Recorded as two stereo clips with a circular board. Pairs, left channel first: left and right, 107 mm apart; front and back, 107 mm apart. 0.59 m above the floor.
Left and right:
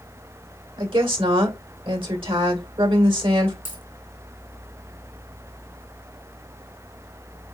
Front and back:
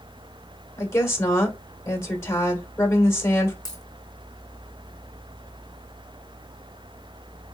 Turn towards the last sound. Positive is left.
turn(degrees=-55)